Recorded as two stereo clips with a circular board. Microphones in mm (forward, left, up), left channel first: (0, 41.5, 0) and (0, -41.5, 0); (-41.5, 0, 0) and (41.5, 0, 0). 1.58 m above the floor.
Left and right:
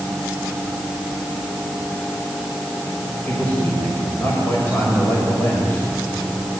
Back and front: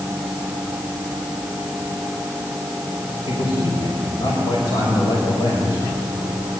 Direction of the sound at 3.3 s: 155° left.